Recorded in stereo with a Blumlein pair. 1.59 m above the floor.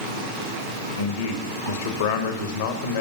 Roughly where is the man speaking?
Ahead left.